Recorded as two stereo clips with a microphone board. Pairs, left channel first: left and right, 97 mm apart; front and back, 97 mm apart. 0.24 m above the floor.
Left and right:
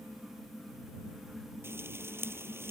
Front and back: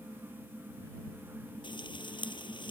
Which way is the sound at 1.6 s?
25° right.